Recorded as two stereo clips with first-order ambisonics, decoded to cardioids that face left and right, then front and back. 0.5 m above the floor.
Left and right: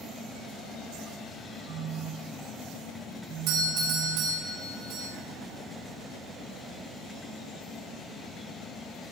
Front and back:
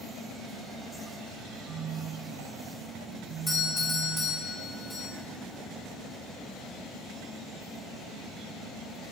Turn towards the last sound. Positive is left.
turn(degrees=-80)